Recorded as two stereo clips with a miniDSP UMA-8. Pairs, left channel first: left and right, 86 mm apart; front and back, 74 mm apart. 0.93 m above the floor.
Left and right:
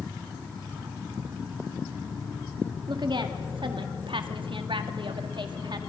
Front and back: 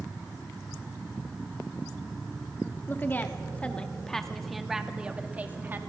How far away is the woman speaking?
About 2 m.